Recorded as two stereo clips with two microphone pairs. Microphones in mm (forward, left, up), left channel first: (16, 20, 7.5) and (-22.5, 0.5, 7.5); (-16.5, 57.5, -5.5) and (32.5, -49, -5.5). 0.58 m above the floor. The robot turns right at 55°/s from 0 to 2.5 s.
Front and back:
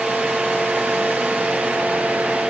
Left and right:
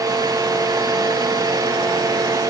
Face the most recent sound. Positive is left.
No sound to turn to.